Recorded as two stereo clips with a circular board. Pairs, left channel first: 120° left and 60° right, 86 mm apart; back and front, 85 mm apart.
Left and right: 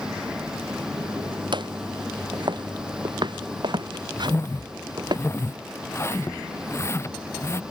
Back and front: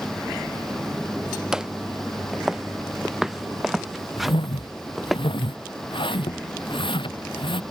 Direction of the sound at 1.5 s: 85° right.